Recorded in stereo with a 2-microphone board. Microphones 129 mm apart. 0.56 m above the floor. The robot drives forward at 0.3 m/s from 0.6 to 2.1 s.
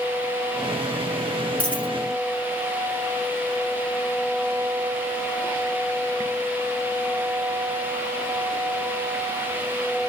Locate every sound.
1.6 s a dropped coin: 10° left (ahead or behind), 1.1 m